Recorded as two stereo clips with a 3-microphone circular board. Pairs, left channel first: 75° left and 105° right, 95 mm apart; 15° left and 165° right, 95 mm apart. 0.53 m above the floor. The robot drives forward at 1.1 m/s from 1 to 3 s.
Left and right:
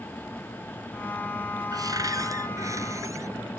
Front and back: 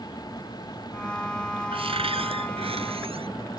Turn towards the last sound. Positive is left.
turn(degrees=-160)